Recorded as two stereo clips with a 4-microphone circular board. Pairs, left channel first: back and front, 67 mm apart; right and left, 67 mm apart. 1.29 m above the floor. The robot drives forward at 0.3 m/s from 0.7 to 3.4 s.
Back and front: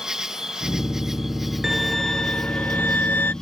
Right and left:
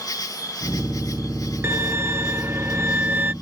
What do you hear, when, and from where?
0.0 s an insect: 80° right; by 3.4 s 100° right
1.6 s a violin: 85° left; by 3.3 s 140° left